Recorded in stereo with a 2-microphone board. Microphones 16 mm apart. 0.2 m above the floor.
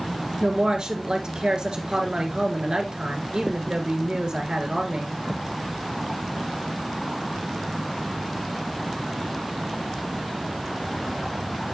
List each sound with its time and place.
0.4 s a woman speaking: 65° right (ahead or behind), 3 m